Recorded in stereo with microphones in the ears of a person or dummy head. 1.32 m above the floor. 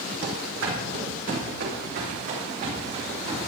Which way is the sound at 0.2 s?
65° right (ahead or behind).